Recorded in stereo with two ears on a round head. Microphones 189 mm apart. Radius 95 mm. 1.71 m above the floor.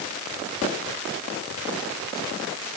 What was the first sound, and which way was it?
Only background noise.